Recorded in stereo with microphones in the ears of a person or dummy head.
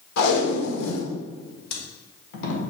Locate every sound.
0.2 s tape being pulled: 65° left (ahead or behind), 1.9 m